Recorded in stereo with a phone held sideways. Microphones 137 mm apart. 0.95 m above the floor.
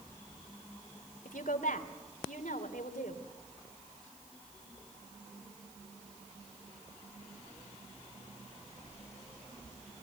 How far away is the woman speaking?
About 3 m.